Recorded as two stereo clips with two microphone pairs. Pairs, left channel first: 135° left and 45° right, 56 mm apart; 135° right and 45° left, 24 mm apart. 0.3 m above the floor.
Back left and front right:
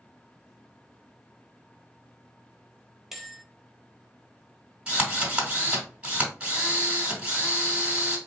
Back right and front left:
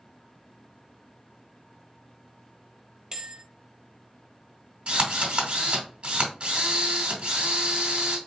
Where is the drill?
25° left, 2.5 m.